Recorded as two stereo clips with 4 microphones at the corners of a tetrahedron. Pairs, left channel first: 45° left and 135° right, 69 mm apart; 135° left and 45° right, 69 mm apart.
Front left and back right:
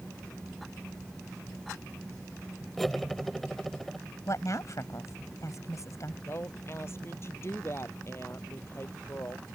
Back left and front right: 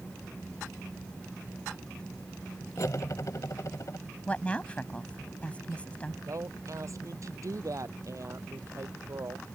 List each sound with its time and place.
2.8 s cutlery clinking: 130° left
4.3 s a woman speaking: 65° left
6.3 s a woman speaking: 5° right